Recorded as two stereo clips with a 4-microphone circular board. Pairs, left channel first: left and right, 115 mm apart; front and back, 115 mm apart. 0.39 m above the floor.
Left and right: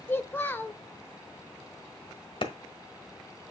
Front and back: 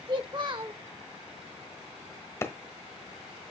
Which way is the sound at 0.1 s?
155° left.